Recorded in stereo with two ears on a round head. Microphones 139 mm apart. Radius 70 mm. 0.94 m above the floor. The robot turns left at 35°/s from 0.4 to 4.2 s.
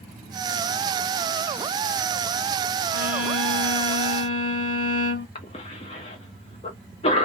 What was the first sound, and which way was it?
A violin, 170° right.